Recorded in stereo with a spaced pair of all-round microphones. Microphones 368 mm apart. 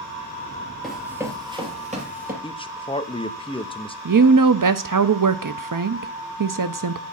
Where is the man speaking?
15° left (ahead or behind), 0.9 m.